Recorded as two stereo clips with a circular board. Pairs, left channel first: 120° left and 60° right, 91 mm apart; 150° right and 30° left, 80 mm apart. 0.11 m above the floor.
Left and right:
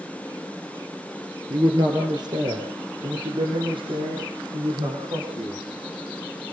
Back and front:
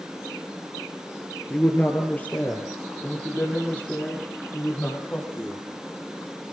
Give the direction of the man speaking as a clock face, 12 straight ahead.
3 o'clock.